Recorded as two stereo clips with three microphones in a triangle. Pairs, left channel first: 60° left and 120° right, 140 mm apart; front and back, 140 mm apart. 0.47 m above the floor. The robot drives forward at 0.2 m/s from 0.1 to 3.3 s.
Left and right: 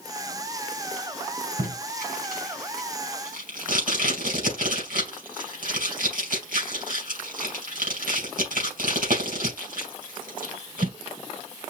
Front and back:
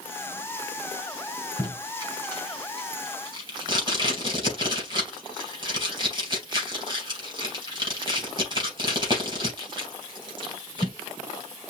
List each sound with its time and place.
1.6 s tape being pulled: 120° right, 3 m; by 10.9 s 125° right, 3 m